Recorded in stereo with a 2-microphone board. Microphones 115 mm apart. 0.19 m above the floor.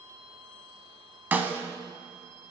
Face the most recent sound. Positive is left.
turn(degrees=-15)  # may be behind; listen again after turning